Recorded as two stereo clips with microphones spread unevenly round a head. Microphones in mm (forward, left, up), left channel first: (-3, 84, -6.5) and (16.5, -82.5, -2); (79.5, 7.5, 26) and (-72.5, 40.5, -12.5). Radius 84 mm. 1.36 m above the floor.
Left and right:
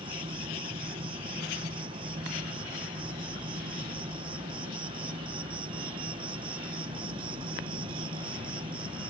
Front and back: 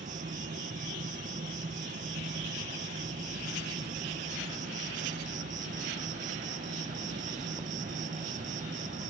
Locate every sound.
0.0 s an insect: 145° right